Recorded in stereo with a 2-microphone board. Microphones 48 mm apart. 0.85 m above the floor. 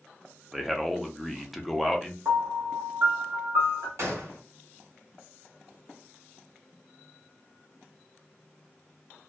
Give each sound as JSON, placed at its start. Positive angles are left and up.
{"t": 0.5, "sound": "a man speaking", "side_deg": 0, "distance_m": 0.6}
{"t": 2.2, "sound": "a piano", "side_deg": -60, "distance_m": 1.0}
{"t": 4.0, "sound": "a gunshot", "side_deg": -55, "distance_m": 1.2}